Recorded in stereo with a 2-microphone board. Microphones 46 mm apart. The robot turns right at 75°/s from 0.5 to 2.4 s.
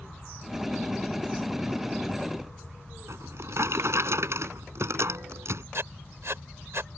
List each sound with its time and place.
3.1 s a drawer: 70° right (ahead or behind)
5.7 s writing: 65° right (ahead or behind)